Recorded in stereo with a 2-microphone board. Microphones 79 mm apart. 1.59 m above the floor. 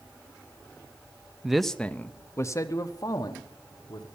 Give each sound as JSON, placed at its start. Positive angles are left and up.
{"t": 1.4, "sound": "a man speaking", "side_deg": -5, "distance_m": 0.6}